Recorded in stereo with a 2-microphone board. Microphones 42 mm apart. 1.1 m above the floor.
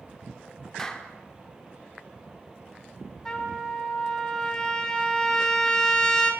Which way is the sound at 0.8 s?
10° left (ahead or behind).